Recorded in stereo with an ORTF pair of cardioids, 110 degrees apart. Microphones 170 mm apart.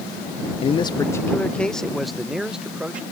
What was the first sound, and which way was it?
A man speaking, 35° left.